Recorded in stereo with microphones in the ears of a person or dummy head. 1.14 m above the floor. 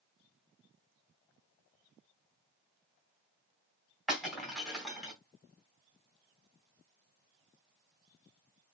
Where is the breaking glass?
Centre (ahead or behind), 3 m.